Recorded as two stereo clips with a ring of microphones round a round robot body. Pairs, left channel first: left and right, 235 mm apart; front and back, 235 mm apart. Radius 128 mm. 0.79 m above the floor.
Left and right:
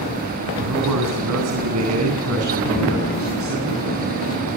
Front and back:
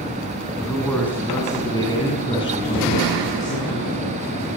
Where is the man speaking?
90° right, 8.5 m; by 4.2 s 60° right, 10.5 m.